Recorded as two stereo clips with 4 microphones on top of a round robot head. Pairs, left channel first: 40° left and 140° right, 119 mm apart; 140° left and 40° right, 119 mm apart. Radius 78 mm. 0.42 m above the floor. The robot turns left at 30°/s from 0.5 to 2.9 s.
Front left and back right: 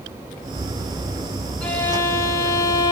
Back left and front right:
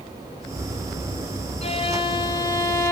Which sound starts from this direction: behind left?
A violin, at 1.6 s.